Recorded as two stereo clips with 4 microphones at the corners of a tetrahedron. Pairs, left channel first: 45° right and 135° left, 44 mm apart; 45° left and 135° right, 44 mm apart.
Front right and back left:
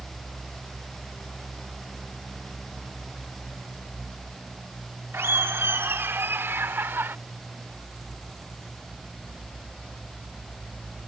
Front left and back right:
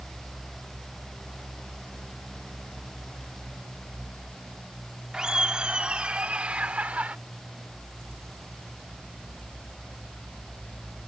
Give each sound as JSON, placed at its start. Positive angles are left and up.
{"t": 5.1, "sound": "laughter", "azimuth_deg": 150}